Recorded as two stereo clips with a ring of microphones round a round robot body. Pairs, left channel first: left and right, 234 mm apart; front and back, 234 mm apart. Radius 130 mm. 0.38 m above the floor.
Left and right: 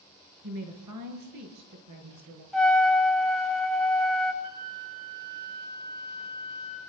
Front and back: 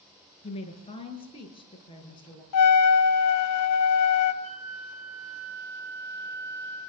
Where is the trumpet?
Straight ahead, 2 m.